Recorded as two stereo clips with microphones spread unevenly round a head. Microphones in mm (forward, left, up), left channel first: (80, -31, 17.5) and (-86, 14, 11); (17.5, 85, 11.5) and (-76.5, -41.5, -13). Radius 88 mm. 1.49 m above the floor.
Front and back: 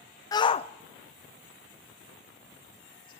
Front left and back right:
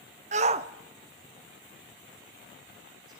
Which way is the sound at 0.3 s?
85° right.